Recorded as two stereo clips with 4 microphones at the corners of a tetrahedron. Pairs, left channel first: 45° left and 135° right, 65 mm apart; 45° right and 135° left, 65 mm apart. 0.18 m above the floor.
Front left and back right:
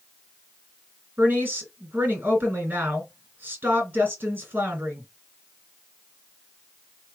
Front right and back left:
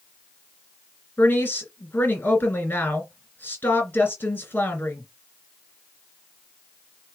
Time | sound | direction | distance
1.2 | a woman speaking | 80° right | 2 m